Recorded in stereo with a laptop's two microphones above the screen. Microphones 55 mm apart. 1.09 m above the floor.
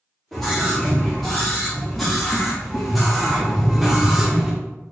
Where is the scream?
10° left (ahead or behind), 3 m; by 4.5 s 10° right (ahead or behind), 1.1 m.